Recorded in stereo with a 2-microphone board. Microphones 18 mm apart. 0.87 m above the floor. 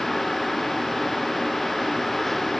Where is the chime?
I don't hear a chime.